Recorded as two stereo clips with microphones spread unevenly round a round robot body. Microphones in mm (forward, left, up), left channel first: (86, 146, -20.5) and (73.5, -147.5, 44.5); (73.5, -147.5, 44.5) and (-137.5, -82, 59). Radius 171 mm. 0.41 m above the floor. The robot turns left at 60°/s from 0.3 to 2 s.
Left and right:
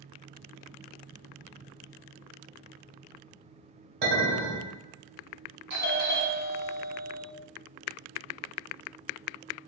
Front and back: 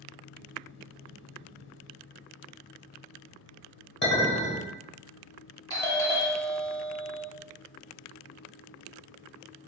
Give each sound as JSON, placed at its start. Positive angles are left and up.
{"t": 4.0, "sound": "a clink", "azimuth_deg": -55, "distance_m": 1.7}
{"t": 5.7, "sound": "a doorbell", "azimuth_deg": -60, "distance_m": 1.7}